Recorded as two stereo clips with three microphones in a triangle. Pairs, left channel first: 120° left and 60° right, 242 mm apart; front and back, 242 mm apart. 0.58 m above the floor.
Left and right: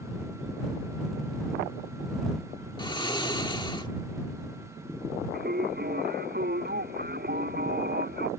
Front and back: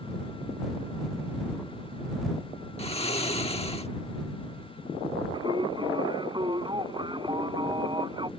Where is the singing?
110° right.